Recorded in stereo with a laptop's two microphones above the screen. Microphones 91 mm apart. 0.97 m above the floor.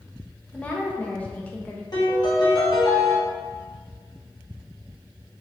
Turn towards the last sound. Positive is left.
turn(degrees=50)  # may be behind; listen again after turning